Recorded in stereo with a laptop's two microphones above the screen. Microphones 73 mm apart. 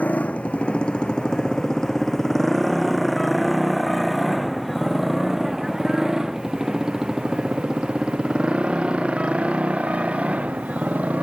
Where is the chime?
No chime in this recording.